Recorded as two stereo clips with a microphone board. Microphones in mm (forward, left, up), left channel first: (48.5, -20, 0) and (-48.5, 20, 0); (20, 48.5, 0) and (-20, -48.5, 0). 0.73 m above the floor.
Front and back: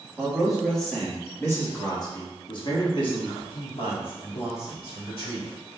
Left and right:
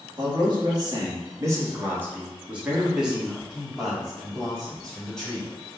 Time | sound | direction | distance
0.2 | a man speaking | 125° right | 1.2 m